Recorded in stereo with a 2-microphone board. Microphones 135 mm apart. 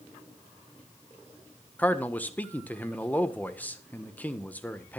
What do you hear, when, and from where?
1.8 s a man speaking: 10° left (ahead or behind), 1.4 m